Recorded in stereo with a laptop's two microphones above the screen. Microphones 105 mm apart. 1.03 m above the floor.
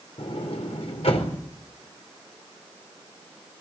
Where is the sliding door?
75° left (ahead or behind), 4 m.